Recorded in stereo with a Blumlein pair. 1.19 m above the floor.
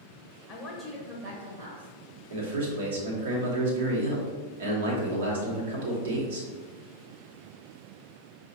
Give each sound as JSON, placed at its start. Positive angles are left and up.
{"t": 0.5, "sound": "a woman speaking", "azimuth_deg": 30, "distance_m": 1.2}
{"t": 2.3, "sound": "a man speaking", "azimuth_deg": -65, "distance_m": 1.2}